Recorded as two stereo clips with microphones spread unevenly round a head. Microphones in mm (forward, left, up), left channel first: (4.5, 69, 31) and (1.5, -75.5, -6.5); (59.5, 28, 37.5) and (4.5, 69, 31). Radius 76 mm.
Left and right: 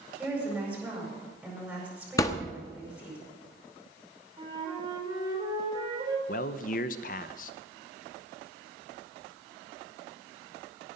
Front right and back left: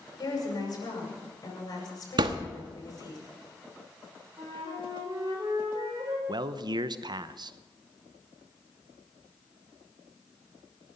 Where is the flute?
155° right, 4 m.